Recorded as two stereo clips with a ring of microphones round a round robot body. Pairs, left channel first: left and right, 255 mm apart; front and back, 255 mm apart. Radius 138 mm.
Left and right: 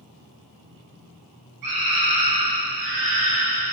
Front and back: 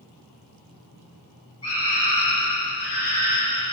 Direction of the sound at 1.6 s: 75° right.